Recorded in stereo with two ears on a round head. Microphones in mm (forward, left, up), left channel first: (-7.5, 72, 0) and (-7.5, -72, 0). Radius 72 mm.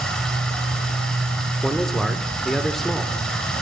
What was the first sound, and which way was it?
Running water, 5° left (ahead or behind).